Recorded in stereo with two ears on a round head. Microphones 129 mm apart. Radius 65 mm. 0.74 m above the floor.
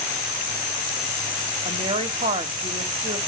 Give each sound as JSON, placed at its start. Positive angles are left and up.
{"t": 1.6, "sound": "a woman speaking", "side_deg": -35, "distance_m": 1.6}